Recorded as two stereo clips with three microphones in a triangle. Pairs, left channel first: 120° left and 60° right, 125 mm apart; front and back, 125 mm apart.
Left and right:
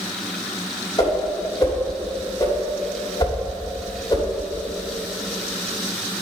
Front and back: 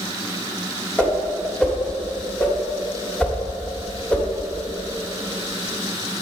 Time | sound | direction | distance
1.0 | a whoosh | 75° left | 1.6 m